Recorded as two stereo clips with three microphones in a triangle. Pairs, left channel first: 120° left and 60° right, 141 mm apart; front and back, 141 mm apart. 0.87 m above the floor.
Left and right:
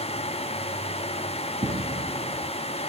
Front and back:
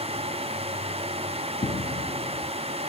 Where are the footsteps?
25° right, 1.8 m.